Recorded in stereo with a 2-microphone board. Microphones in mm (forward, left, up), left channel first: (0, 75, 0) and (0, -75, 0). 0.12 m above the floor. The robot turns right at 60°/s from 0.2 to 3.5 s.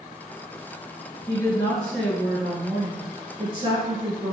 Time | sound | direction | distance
1.3 | a woman speaking | 125° left | 1.8 m